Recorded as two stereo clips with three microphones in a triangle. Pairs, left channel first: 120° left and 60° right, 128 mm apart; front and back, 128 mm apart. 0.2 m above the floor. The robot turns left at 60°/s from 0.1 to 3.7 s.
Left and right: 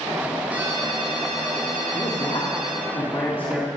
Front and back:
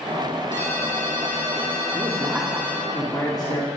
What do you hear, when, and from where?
0.5 s a ringtone: 20° left, 6.5 m; by 2.9 s 125° right, 6.5 m
1.9 s a man speaking: 135° left, 3 m; by 3.7 s 30° left, 3 m